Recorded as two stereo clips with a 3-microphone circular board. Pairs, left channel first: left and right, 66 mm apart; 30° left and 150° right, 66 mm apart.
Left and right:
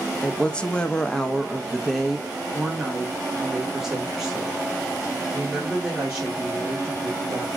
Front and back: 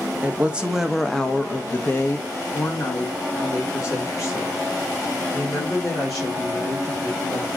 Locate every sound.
0.2 s a woman speaking: 155° left, 0.8 m; by 7.5 s 10° right, 3.5 m